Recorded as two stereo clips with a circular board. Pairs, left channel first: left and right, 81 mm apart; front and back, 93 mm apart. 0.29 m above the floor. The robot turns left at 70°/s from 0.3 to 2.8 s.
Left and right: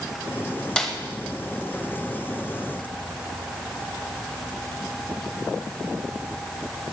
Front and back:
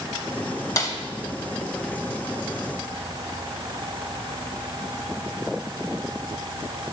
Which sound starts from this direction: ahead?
A snare drum, at 0.8 s.